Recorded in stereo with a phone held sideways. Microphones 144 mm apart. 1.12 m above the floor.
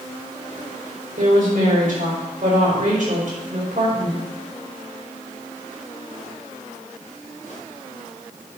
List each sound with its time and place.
1.2 s a woman speaking: 65° right (ahead or behind), 4.5 m